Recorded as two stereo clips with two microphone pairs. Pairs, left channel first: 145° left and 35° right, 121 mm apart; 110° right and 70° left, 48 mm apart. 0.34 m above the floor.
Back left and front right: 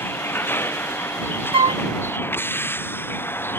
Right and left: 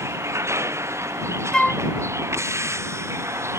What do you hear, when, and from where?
0.0 s a vehicle: 75° left
1.5 s a flute: 35° right